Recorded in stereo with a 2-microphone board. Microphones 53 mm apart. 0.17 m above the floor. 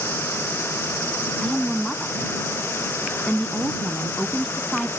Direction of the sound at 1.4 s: 5° left (ahead or behind).